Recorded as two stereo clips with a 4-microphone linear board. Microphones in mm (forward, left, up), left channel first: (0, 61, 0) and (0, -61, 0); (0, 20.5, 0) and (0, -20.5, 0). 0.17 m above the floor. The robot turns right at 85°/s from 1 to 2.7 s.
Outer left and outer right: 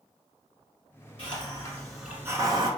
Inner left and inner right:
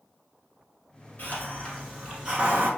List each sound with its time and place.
1.2 s a hiss: 115° left, 1.1 m; by 2.7 s 115° right, 1.1 m